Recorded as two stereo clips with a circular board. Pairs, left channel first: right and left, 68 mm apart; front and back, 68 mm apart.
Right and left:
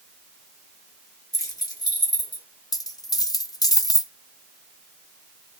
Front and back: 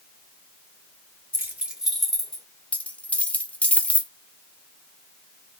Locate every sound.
1.3 s keys jangling: 125° right, 1.0 m; by 2.4 s 75° right, 1.6 m
2.7 s a dropped coin: 70° right, 0.5 m